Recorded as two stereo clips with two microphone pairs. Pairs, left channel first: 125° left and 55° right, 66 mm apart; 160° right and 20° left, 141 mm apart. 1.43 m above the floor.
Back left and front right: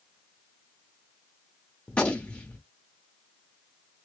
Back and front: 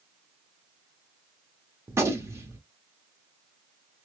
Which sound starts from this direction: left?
A gunshot, at 1.9 s.